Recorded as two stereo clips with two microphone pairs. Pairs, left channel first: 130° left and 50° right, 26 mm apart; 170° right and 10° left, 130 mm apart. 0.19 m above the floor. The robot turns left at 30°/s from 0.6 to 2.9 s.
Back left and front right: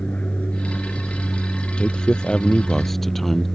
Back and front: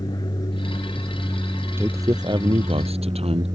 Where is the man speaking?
80° left; by 3.5 s 50° left.